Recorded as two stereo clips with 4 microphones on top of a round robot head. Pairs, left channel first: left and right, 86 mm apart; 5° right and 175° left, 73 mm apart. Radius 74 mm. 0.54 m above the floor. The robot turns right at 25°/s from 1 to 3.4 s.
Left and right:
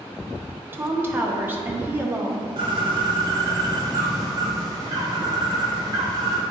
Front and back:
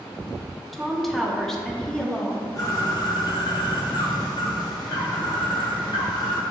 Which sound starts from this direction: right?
A woman speaking, at 0.7 s.